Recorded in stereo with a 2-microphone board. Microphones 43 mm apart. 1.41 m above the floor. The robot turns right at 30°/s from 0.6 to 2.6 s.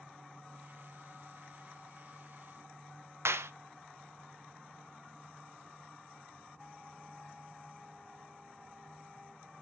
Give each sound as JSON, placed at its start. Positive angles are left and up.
{"t": 3.2, "sound": "a clap", "side_deg": -85, "distance_m": 0.8}